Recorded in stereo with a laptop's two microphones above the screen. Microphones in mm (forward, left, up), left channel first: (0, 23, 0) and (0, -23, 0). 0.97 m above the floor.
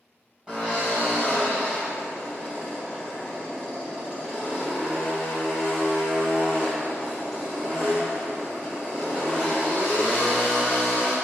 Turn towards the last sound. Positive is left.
turn(degrees=-20)  # may be behind; listen again after turning